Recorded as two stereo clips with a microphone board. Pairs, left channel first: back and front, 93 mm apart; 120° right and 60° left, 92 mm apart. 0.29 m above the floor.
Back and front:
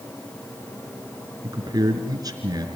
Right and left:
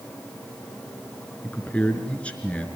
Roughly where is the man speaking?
Ahead right.